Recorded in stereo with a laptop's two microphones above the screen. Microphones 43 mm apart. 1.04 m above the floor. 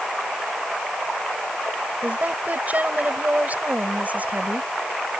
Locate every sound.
2.0 s a woman speaking: 40° right (ahead or behind)